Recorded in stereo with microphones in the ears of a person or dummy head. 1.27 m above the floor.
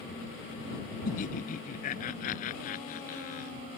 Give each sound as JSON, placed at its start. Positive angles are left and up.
{"t": 1.1, "sound": "laughter", "side_deg": 45}